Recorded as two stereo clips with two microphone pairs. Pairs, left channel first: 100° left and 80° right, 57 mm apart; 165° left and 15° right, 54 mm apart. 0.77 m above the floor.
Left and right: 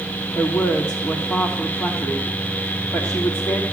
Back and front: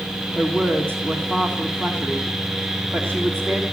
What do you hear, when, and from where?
0.3 s a woman speaking: 105° left, 1.6 m